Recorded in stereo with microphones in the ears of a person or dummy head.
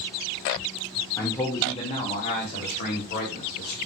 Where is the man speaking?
15° left (ahead or behind), 1.7 m; by 3.8 s 55° left (ahead or behind), 4 m.